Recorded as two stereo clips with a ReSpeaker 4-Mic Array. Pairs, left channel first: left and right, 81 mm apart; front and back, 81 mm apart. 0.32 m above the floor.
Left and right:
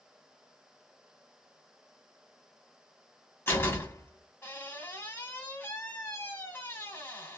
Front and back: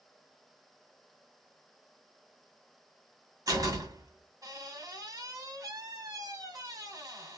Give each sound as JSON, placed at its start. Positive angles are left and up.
{"t": 3.5, "sound": "a door slam", "azimuth_deg": 150, "distance_m": 1.8}